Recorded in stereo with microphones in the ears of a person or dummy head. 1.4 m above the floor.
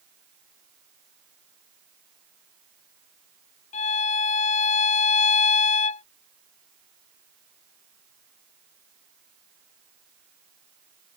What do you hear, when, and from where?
3.7 s a violin: 45° left (ahead or behind)